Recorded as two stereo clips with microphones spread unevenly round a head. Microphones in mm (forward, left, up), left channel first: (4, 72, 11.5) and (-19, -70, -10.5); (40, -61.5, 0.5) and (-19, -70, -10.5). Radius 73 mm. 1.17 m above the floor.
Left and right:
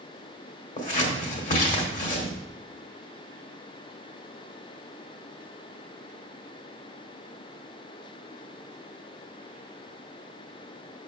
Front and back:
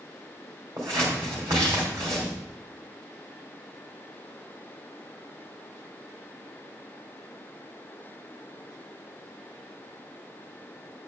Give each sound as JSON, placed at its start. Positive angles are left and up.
{"t": 0.8, "sound": "scissors", "azimuth_deg": 120, "distance_m": 2.0}